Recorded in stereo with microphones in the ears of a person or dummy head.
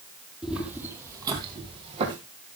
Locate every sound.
0.4 s footsteps: centre (ahead or behind), 3 m; by 2.2 s 35° right (ahead or behind), 4 m